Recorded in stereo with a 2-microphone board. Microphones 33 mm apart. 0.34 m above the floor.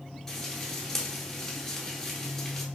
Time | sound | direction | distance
0.3 | frying | 15° left (ahead or behind) | 0.9 m